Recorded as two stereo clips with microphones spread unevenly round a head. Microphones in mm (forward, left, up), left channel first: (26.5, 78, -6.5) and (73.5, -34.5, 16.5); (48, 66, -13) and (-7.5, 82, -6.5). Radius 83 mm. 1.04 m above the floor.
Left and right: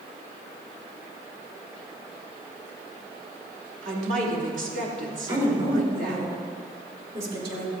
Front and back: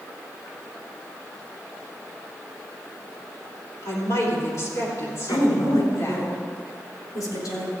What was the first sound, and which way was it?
A woman speaking, 55° right.